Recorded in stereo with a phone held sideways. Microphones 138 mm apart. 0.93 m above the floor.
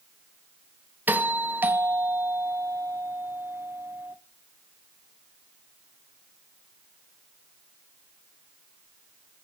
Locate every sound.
1.1 s a doorbell: 15° right (ahead or behind), 0.9 m